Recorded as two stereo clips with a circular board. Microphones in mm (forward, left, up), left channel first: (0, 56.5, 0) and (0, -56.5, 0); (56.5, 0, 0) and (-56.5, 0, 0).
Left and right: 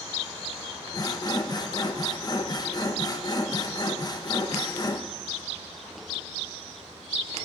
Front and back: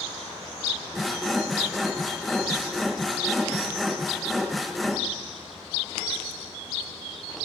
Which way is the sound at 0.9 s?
90° left.